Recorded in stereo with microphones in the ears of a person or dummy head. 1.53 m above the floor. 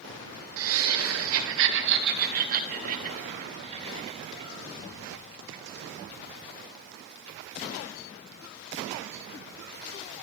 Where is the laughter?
75° right (ahead or behind), 1.4 m; by 4.5 s 35° right (ahead or behind), 2.5 m.